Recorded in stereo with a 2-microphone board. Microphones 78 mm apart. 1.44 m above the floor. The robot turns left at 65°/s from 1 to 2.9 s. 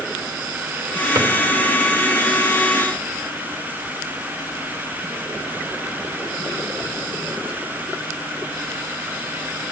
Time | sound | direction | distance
1.1 | a drawer | 45° right (ahead or behind) | 2.5 m